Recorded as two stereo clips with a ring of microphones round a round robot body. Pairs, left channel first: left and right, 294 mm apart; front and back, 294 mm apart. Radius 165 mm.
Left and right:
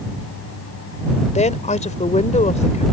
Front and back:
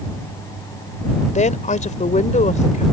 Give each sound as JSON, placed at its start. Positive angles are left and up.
{"t": 1.4, "sound": "a woman speaking", "azimuth_deg": 45}